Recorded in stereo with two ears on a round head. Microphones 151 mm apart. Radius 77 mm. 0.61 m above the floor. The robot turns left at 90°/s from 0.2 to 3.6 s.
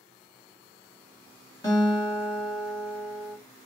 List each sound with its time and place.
1.6 s a guitar: 145° left, 1.5 m; by 3.4 s 10° right, 1.5 m